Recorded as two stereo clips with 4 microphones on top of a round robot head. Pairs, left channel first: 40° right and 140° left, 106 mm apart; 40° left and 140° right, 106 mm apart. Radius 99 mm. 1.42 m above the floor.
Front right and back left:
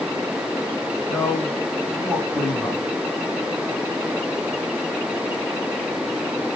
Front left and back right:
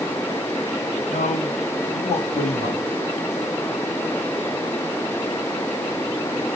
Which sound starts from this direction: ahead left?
A man speaking, at 1.1 s.